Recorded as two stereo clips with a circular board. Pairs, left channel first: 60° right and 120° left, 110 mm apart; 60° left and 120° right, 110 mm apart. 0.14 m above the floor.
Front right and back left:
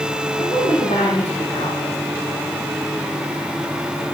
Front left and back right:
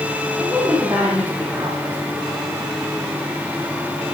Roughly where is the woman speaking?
Ahead right.